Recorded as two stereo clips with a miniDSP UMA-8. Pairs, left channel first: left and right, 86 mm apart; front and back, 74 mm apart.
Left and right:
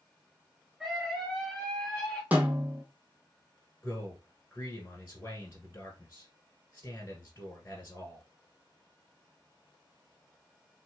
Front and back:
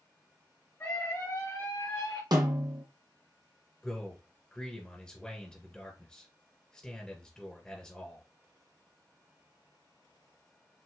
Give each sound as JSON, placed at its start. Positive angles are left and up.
{"t": 0.8, "sound": "a scream", "azimuth_deg": -5, "distance_m": 1.5}
{"t": 2.3, "sound": "a snare drum", "azimuth_deg": -160, "distance_m": 1.3}
{"t": 3.8, "sound": "a man speaking", "azimuth_deg": 70, "distance_m": 1.4}